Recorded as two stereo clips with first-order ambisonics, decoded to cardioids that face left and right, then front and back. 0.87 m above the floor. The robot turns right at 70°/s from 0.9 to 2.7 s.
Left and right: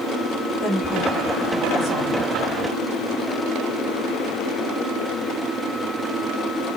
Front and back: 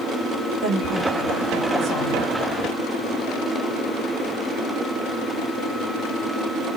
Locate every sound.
0.6 s a woman speaking: 145° left, 2.5 m; by 2.3 s 115° right, 2.5 m